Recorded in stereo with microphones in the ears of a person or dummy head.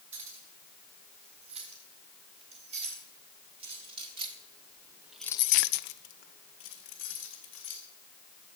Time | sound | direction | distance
0.1 | keys jangling | 40° right (ahead or behind) | 7 m